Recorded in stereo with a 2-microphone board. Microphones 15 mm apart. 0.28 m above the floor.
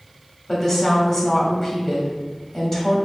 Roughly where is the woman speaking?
Centre.